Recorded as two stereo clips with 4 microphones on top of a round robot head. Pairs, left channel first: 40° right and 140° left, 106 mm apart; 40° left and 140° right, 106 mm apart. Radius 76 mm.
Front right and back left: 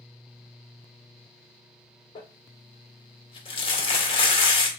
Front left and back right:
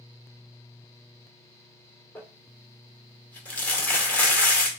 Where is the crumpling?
35° right, 1.4 m.